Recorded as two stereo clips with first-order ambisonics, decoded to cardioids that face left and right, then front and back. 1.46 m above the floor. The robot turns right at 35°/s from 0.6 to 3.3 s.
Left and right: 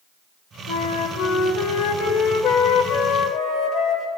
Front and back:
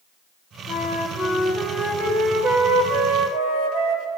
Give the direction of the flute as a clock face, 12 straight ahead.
10 o'clock.